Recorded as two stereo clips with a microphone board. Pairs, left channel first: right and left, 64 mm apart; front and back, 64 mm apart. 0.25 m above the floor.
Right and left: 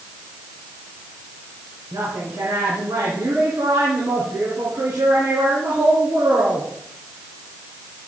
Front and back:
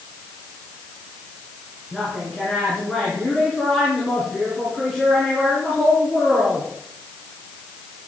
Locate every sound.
1.9 s a woman speaking: 80° left, 3.5 m